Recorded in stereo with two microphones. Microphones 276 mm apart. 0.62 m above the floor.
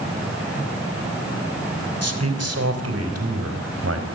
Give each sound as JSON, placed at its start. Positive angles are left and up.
{"t": 2.0, "sound": "a man speaking", "side_deg": -60, "distance_m": 3.5}